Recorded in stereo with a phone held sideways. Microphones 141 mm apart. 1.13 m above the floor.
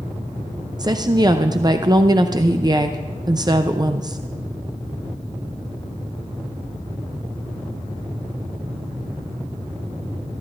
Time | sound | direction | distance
0.8 | a woman speaking | 30° right (ahead or behind) | 0.5 m